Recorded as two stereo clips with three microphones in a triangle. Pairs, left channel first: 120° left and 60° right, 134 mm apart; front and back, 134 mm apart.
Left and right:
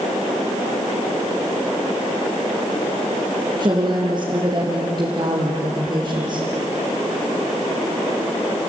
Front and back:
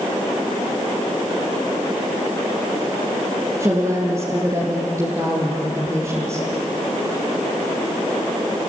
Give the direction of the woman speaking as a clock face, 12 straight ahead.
4 o'clock.